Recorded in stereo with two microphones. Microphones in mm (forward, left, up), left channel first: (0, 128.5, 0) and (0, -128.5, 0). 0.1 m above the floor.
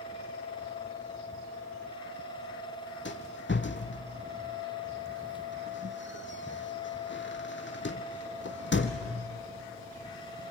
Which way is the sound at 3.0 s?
45° left (ahead or behind).